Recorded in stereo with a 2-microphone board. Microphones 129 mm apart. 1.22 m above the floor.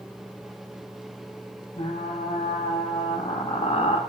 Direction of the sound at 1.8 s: 55° left (ahead or behind).